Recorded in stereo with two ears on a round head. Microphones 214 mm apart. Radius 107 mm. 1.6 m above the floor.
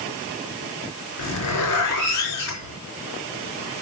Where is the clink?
I don't hear a clink.